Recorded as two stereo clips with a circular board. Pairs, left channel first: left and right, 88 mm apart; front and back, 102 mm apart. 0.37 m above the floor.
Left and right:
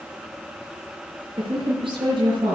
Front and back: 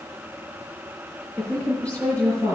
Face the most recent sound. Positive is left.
turn(degrees=-75)